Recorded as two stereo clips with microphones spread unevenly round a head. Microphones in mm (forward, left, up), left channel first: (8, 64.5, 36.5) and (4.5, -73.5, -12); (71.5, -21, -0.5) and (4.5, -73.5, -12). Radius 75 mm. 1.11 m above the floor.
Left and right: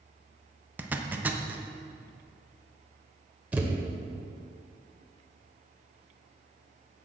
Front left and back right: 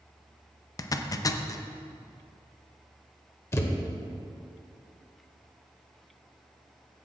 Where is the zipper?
15° right, 0.7 m.